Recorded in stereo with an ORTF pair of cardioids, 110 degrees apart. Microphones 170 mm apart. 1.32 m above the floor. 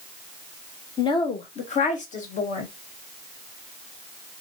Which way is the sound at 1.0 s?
25° left.